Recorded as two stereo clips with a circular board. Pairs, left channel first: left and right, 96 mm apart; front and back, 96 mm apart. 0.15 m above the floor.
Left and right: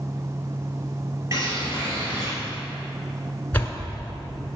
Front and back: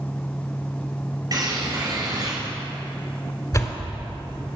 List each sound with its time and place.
1.3 s a bird: 140° right, 3 m
3.5 s a door slam: 30° left, 1.4 m